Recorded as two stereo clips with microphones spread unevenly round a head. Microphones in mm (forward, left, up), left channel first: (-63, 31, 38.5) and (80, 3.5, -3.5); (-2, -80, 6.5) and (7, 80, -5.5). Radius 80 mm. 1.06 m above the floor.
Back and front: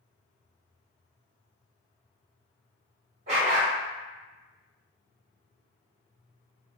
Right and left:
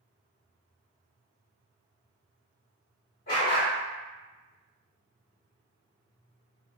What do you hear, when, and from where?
3.3 s a dog barking: 65° right, 1.4 m